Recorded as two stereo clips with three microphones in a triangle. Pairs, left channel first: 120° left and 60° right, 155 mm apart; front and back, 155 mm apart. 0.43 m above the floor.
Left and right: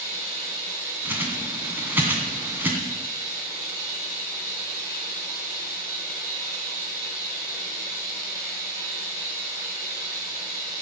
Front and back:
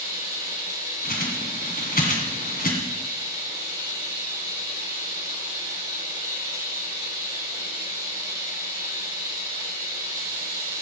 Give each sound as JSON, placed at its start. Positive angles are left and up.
{"t": 0.0, "sound": "running water", "azimuth_deg": -170, "distance_m": 5.0}
{"t": 1.1, "sound": "a bird", "azimuth_deg": 15, "distance_m": 2.0}